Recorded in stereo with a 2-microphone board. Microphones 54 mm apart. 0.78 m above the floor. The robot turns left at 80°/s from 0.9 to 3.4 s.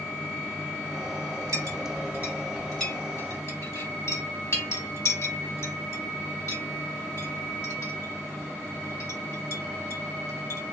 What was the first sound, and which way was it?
A clink, 85° right.